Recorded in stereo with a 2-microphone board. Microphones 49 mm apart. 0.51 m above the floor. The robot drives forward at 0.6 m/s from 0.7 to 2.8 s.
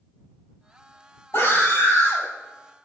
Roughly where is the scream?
Left.